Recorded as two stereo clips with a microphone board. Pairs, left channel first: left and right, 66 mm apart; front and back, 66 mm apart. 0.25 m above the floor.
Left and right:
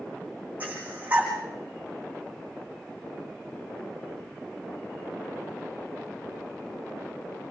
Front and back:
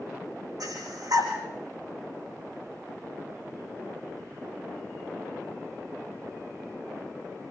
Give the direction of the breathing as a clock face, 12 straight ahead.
5 o'clock.